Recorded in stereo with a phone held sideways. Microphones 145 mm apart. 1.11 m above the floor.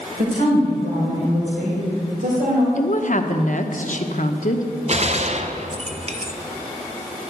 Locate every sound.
0.2 s a woman speaking: 80° right, 4.5 m
2.8 s a woman speaking: 60° left (ahead or behind), 1.0 m
4.9 s a gunshot: 50° right (ahead or behind), 0.7 m